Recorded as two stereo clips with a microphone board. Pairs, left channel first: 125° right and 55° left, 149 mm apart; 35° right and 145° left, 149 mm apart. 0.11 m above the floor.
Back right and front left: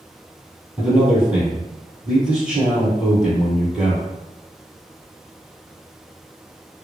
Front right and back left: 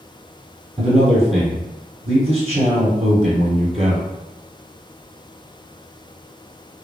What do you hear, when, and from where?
0.8 s a man speaking: 140° left, 1.8 m